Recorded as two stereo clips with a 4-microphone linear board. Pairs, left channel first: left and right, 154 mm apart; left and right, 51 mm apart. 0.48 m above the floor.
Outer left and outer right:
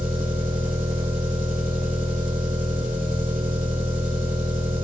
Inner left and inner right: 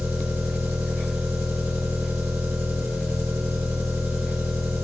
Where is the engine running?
60° right (ahead or behind), 1.8 m.